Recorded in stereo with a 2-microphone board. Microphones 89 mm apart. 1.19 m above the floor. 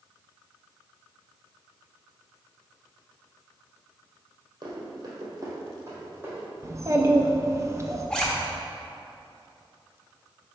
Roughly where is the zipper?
Centre.